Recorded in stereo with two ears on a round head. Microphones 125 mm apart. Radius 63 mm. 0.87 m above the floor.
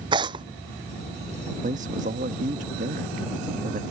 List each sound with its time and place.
0.1 s tearing paper: 35° right (ahead or behind)
1.6 s a man speaking: 60° right (ahead or behind)